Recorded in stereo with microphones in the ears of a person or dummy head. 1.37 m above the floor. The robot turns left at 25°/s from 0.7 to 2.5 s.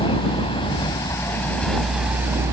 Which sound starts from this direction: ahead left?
A vehicle, at 0.0 s.